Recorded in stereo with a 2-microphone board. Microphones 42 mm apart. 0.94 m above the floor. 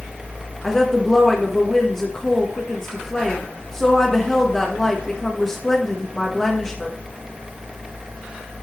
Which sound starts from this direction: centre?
A woman speaking, at 0.6 s.